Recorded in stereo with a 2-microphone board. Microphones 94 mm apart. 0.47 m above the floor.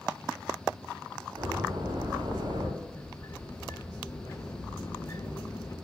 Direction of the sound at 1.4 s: 60° right (ahead or behind).